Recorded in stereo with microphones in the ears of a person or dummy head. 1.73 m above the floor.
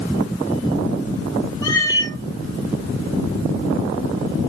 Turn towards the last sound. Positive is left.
turn(degrees=20)  # may be behind; listen again after turning